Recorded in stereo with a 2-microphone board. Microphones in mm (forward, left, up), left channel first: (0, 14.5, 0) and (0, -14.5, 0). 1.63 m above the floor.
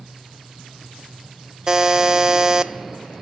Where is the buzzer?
15° right (ahead or behind), 0.6 m.